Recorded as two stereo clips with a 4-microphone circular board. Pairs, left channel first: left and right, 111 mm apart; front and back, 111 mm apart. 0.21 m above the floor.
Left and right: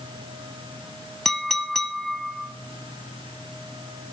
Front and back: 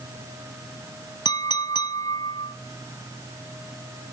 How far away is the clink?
About 0.8 m.